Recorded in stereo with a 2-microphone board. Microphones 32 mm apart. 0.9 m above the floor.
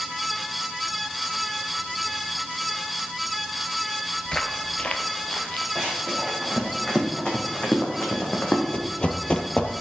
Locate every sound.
4.2 s footsteps: 20° left (ahead or behind), 0.9 m; by 5.7 s 35° left (ahead or behind), 1.8 m
5.8 s running footsteps: 10° left (ahead or behind), 4.5 m; by 8.6 s 50° left (ahead or behind), 2.5 m
8.7 s running footsteps: 30° left (ahead or behind), 1.0 m